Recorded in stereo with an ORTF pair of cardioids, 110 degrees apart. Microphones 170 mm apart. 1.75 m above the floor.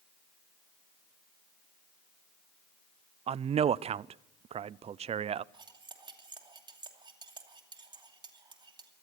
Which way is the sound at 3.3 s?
35° right.